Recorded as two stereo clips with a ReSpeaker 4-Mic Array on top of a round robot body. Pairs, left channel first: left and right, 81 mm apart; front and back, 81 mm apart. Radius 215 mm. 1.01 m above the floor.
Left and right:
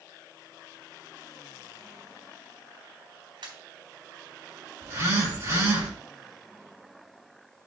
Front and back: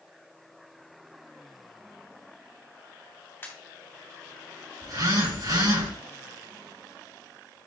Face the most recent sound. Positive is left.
turn(degrees=-145)